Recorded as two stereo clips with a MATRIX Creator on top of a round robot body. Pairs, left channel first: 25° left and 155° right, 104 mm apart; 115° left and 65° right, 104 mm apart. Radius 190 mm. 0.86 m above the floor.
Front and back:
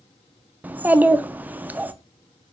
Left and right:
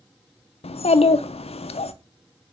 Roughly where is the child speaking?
Behind left.